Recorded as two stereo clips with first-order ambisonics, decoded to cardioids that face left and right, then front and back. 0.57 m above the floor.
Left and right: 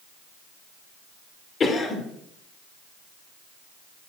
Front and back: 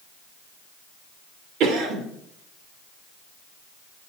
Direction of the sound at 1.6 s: 155° left.